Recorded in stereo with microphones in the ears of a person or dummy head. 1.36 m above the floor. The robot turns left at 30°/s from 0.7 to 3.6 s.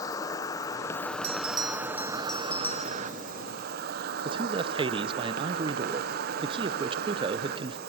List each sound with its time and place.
0.0 s an insect: 25° left, 1.1 m; by 7.9 s 65° right, 1.1 m
1.2 s a bell: 145° right, 1.2 m; by 3.0 s 160° left, 1.2 m
4.2 s a man speaking: 25° right (ahead or behind), 0.6 m